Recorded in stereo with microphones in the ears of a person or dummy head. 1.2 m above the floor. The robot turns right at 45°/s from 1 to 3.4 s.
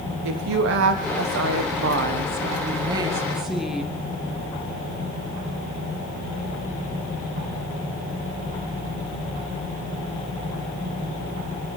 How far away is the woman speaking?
About 1.1 m.